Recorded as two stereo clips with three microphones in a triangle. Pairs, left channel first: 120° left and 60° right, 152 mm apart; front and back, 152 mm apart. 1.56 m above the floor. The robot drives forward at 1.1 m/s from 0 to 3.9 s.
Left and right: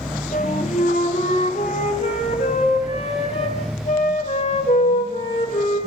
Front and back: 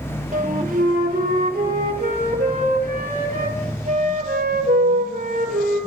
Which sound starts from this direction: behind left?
A flute, at 0.3 s.